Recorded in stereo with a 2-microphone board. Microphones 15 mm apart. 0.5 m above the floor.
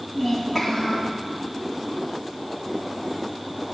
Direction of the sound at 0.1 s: 25° right (ahead or behind).